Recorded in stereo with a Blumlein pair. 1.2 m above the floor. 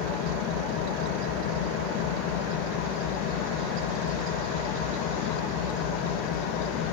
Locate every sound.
0.0 s an engine running: 40° left, 0.8 m